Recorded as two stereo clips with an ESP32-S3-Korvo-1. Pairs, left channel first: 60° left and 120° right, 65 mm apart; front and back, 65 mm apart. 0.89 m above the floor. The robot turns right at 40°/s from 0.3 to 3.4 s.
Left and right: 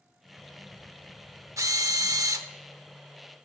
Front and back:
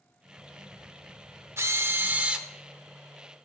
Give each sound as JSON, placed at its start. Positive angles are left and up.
{"t": 1.6, "sound": "a drill", "azimuth_deg": -140, "distance_m": 0.8}